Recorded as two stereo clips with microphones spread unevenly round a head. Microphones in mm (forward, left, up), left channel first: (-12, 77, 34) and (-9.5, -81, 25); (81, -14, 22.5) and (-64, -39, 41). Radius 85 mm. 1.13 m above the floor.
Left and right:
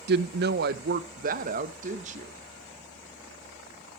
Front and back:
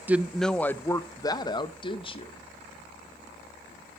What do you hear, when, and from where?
0.1 s a woman speaking: 90° right, 0.7 m; by 2.3 s 40° right, 1.6 m